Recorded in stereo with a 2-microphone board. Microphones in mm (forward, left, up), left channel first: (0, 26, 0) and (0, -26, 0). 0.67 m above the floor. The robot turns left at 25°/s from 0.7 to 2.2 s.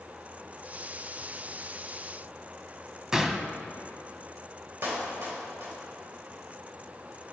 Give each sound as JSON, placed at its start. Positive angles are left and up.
{"t": 3.1, "sound": "a gunshot", "side_deg": -15, "distance_m": 0.6}
{"t": 4.8, "sound": "a clap", "side_deg": -60, "distance_m": 2.5}